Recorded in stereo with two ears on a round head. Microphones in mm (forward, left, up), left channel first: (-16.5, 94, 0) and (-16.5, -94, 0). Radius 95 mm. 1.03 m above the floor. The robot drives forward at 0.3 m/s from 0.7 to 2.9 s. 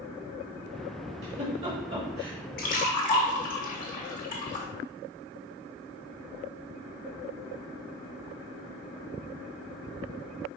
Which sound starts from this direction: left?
A splash, at 2.6 s.